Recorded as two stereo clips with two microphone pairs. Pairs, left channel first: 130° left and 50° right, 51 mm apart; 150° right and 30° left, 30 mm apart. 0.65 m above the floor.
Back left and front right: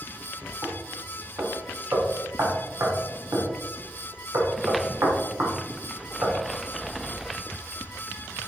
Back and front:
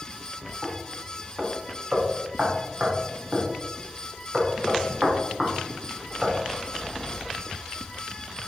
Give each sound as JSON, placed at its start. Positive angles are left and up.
{"t": 0.6, "sound": "knocking", "azimuth_deg": -30, "distance_m": 1.1}